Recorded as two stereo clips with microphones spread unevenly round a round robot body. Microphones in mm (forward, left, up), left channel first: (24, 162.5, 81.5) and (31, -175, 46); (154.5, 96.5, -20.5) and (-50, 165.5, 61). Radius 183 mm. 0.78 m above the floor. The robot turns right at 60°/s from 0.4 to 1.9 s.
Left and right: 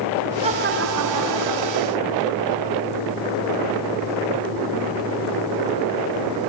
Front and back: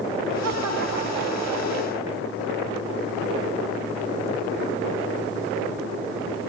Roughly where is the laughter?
Behind.